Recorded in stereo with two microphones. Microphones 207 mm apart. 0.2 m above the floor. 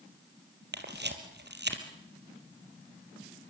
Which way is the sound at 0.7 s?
60° right (ahead or behind).